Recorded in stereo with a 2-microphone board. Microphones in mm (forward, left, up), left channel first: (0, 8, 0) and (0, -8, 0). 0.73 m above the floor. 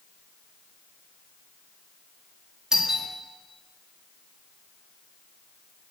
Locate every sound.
2.7 s a doorbell: 30° right (ahead or behind), 2 m